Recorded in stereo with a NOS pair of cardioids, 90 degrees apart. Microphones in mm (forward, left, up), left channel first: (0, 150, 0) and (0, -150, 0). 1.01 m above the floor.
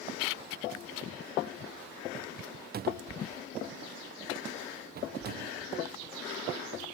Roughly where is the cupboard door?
Ahead right.